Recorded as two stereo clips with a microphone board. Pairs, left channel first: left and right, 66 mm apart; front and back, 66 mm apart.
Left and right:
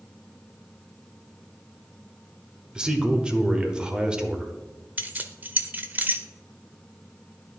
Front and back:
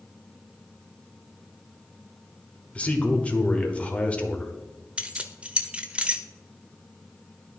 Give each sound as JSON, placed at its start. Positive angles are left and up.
{"t": 2.8, "sound": "a man speaking", "azimuth_deg": -35, "distance_m": 0.9}
{"t": 5.0, "sound": "keys jangling", "azimuth_deg": -125, "distance_m": 0.6}